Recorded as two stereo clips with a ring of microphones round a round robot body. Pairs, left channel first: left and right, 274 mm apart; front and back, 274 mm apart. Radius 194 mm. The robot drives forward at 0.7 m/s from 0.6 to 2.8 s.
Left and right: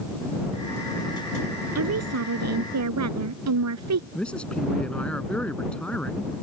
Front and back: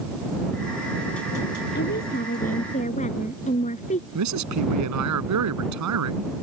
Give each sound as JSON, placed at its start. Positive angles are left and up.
{"t": 1.8, "sound": "a woman speaking", "azimuth_deg": -65}
{"t": 4.2, "sound": "a man speaking", "azimuth_deg": 175}